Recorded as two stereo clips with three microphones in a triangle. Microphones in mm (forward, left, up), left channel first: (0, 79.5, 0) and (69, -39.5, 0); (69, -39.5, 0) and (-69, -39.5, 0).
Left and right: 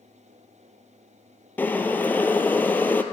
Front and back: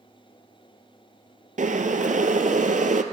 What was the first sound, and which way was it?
Boiling, 165° right.